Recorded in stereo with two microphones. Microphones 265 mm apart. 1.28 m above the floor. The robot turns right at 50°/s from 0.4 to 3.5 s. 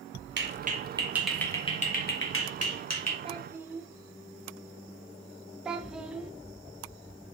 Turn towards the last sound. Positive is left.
turn(degrees=-5)  # may be behind; listen again after turning